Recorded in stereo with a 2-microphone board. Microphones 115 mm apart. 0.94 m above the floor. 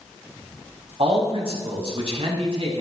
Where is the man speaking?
65° right (ahead or behind), 6 m.